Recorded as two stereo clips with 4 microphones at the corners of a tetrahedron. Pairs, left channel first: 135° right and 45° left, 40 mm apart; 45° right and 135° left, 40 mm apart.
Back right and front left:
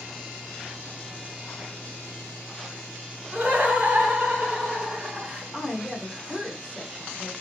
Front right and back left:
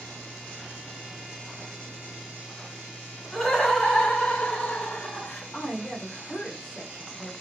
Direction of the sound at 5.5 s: 20° right.